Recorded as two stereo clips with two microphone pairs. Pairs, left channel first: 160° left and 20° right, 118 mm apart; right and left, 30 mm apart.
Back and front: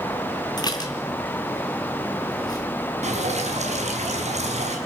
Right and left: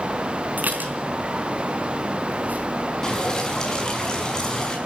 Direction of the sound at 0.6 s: 105° left.